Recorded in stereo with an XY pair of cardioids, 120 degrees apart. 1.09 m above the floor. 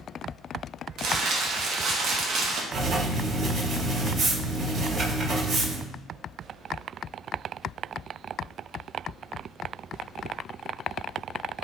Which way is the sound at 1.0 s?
65° right.